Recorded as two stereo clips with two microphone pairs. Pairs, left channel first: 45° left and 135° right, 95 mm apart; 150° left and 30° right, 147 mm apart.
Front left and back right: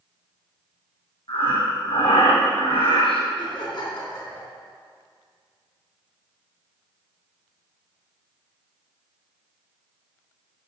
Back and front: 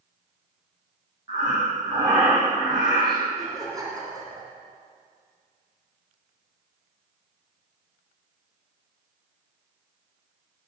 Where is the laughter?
30° left, 3 m.